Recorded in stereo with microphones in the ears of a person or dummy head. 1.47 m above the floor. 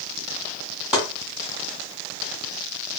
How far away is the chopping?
About 1.4 m.